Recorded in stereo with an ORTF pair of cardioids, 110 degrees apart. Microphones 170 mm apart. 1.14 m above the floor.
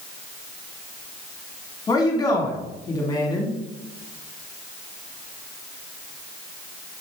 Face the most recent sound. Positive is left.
turn(degrees=20)